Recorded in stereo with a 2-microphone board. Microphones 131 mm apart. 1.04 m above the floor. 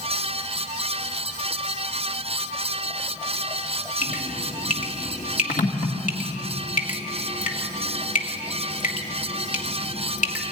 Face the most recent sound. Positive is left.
turn(degrees=75)  # may be behind; listen again after turning